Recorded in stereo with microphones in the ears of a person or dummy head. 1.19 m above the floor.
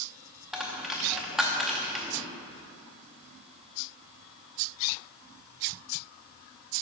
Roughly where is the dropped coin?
Centre.